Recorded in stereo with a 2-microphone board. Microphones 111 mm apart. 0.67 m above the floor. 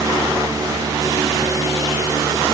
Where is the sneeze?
No sneeze in this recording.